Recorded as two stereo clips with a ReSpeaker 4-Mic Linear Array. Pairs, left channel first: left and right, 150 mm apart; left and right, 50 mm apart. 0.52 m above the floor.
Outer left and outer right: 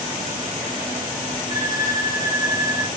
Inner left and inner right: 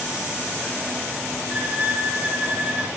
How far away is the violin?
About 0.8 m.